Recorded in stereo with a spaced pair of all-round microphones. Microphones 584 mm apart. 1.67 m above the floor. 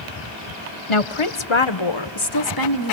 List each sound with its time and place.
0.9 s a woman speaking: 55° left (ahead or behind), 0.8 m; by 2.9 s 30° left (ahead or behind), 1.4 m